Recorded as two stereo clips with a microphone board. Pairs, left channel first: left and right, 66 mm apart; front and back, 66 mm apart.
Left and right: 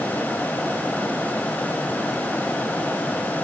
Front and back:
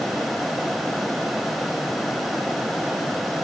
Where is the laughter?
No laughter in this recording.